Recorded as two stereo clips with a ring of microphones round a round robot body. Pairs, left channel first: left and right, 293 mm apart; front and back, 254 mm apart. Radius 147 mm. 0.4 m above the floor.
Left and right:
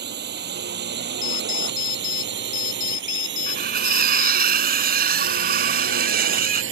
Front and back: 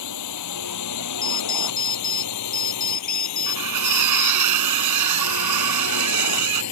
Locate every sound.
0.0 s a drone: 35° right; by 6.7 s 40° right
1.2 s an alarm clock: 55° left
3.5 s cutlery clinking: 150° right